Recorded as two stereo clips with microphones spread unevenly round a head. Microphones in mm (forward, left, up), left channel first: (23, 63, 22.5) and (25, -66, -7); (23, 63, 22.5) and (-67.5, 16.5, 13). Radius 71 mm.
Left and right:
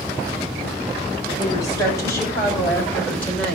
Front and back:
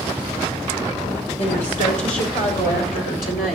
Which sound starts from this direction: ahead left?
A woman speaking, at 1.4 s.